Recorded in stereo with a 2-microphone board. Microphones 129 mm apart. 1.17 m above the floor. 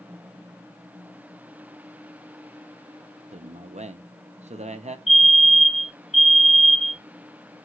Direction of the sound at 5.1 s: 60° left (ahead or behind).